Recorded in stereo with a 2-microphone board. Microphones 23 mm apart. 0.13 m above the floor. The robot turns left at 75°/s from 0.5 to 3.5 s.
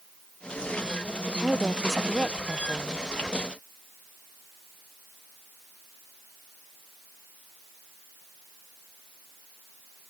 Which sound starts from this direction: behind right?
A woman speaking, at 1.3 s.